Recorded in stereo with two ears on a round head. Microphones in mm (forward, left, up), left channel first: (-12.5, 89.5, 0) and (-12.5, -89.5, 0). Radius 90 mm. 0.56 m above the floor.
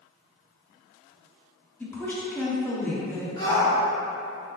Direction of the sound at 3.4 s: 20° left (ahead or behind).